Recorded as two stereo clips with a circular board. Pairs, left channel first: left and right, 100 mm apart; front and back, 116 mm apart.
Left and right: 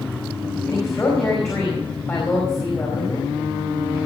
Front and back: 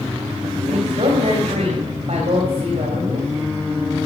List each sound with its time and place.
0.7 s a woman speaking: 155° left, 4 m